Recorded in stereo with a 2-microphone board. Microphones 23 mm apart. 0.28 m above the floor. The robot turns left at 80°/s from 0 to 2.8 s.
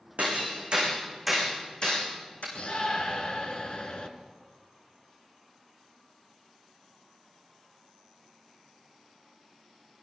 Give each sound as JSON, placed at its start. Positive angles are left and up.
{"t": 0.2, "sound": "hammering", "side_deg": -90, "distance_m": 6.0}
{"t": 2.5, "sound": "a shout", "side_deg": 60, "distance_m": 3.0}